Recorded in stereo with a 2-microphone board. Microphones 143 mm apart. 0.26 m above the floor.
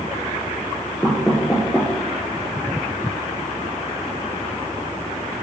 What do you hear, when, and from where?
1.0 s knocking: 5° left (ahead or behind), 3.5 m